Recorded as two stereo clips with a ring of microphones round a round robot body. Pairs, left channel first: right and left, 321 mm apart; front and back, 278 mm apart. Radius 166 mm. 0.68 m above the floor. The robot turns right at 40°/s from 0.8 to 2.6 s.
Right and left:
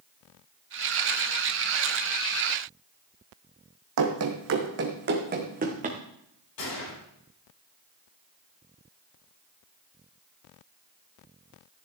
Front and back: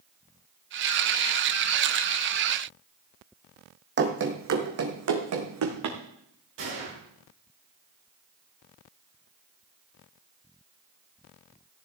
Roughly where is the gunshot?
Behind right.